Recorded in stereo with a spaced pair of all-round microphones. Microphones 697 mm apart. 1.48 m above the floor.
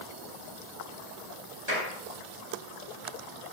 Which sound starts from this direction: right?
A clap, at 1.7 s.